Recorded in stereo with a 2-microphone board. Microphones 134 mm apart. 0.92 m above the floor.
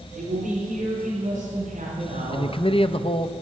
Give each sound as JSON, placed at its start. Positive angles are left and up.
{"t": 0.1, "sound": "a man speaking", "side_deg": -80, "distance_m": 3.5}
{"t": 2.3, "sound": "a man speaking", "side_deg": 45, "distance_m": 0.5}